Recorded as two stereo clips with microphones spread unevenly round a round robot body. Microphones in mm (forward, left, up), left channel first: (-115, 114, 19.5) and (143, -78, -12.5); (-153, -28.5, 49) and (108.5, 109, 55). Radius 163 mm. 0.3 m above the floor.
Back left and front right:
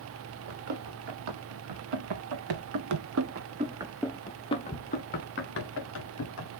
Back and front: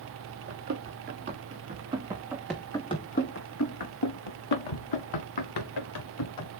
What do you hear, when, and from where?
0.5 s running footsteps: 35° right, 2.5 m; by 6.5 s 170° right, 2.5 m